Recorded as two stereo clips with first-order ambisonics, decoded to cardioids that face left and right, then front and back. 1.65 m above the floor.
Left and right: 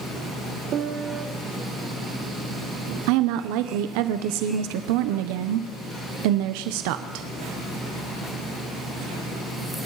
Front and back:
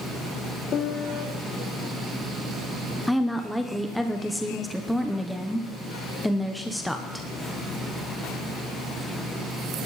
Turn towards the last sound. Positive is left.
turn(degrees=-90)